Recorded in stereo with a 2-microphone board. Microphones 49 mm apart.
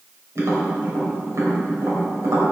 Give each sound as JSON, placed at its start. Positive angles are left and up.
{"t": 0.3, "sound": "tapping", "side_deg": -70, "distance_m": 3.0}